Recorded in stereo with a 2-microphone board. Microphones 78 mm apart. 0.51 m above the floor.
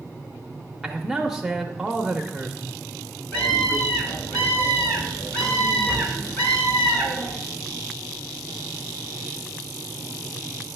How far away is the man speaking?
About 0.8 m.